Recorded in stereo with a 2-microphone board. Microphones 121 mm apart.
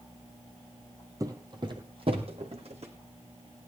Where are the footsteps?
30° right (ahead or behind), 1.6 m; by 2.9 s 60° right (ahead or behind), 3 m.